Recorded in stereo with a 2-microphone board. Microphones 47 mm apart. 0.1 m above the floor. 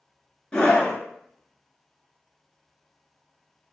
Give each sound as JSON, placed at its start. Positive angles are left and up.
{"t": 0.5, "sound": "a scream", "side_deg": 25, "distance_m": 1.1}